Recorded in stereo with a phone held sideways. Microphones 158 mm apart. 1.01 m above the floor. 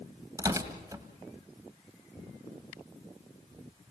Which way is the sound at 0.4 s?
20° right (ahead or behind).